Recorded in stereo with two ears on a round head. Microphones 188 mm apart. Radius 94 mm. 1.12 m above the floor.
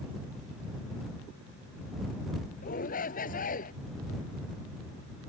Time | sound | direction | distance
2.6 | a shout | 40° left (ahead or behind) | ?